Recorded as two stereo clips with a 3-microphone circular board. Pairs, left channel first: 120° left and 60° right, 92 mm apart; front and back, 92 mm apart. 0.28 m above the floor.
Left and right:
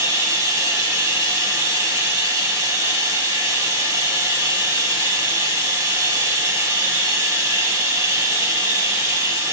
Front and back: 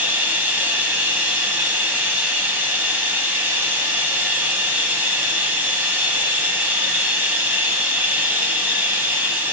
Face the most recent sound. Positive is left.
turn(degrees=-110)